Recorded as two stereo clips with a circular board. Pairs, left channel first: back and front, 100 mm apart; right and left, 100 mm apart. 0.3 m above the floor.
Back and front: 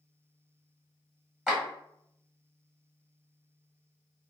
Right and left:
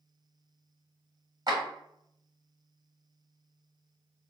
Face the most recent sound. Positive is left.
turn(degrees=80)